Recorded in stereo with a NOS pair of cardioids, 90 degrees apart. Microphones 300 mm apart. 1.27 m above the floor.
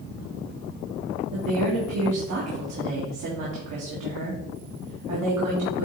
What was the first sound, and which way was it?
A woman speaking, 70° right.